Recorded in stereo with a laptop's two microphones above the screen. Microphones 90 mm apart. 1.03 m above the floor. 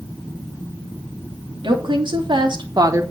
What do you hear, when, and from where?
1.6 s a woman speaking: 60° right (ahead or behind), 2.5 m; by 3.0 s 30° right (ahead or behind), 1.1 m